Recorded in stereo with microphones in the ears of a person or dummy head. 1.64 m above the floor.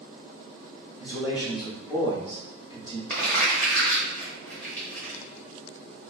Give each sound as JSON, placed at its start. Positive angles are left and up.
{"t": 1.0, "sound": "a man speaking", "side_deg": 30, "distance_m": 0.9}
{"t": 3.1, "sound": "crumpling", "side_deg": 10, "distance_m": 0.9}